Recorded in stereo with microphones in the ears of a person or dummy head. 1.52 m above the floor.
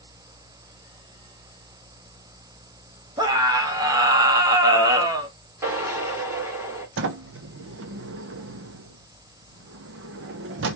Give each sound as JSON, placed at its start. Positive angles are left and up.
{"t": 3.2, "sound": "a scream", "side_deg": -20, "distance_m": 1.0}
{"t": 5.6, "sound": "a drill", "side_deg": -20, "distance_m": 2.0}
{"t": 7.0, "sound": "a sliding door", "side_deg": -70, "distance_m": 0.7}